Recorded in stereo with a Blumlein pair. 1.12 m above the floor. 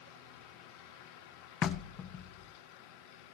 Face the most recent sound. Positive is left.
turn(degrees=30)